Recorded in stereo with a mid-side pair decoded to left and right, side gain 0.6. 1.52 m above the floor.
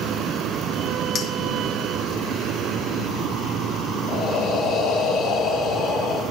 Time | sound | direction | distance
1.1 | a clink | 40° left | 1.5 m
4.1 | breathing | 55° left | 2.5 m